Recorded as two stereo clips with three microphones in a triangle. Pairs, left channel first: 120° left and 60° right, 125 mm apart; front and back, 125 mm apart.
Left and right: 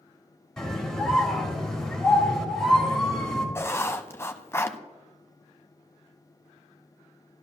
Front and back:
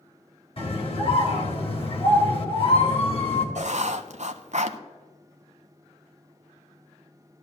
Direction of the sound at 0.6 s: 35° left.